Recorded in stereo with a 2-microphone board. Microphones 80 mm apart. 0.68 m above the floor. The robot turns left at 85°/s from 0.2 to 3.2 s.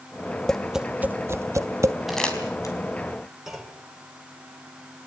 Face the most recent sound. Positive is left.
turn(degrees=-5)  # may be behind; listen again after turning